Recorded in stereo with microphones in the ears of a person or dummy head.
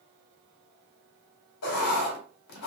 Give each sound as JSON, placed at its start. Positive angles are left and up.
{"t": 1.6, "sound": "writing", "side_deg": 70, "distance_m": 1.6}